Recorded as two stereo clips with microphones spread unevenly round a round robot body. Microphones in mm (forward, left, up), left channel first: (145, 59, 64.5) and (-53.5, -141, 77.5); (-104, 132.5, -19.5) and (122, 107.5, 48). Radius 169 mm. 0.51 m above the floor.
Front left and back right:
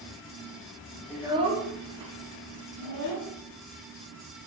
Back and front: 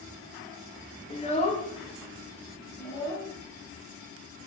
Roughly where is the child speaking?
Behind left.